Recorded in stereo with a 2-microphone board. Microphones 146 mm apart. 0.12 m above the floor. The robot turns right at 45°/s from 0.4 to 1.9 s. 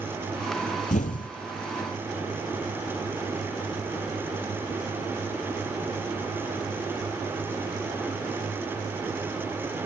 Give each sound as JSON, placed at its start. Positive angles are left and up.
{"t": 0.9, "sound": "an explosion", "side_deg": 65, "distance_m": 0.6}